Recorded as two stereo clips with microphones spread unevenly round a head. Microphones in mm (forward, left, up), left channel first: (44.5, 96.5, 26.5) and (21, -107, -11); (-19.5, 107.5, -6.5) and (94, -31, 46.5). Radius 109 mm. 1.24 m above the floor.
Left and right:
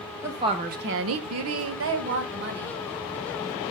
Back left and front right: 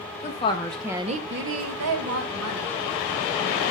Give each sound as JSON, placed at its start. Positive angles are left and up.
{"t": 0.2, "sound": "a woman speaking", "azimuth_deg": -175, "distance_m": 1.5}